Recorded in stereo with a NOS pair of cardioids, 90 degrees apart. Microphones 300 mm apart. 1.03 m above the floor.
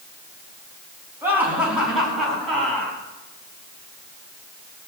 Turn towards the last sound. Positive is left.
turn(degrees=5)